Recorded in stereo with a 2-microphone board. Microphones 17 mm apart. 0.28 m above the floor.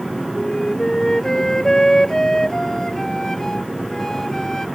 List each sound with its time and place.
0.3 s a flute: 30° left (ahead or behind)